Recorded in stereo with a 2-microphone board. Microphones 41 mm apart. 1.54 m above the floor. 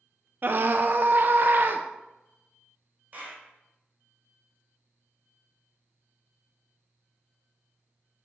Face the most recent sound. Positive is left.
turn(degrees=-45)  # may be behind; listen again after turning